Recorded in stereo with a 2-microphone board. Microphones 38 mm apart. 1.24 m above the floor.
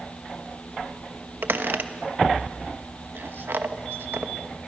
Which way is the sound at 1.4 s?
70° right (ahead or behind).